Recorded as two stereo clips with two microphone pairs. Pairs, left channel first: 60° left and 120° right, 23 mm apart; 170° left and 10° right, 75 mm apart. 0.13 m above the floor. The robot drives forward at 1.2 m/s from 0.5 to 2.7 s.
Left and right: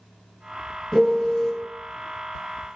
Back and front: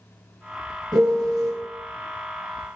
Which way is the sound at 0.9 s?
5° left.